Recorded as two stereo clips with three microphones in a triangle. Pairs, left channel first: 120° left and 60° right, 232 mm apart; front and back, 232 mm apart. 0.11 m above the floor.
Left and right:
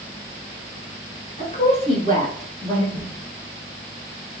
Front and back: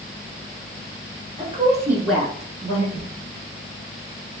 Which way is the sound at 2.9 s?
25° right.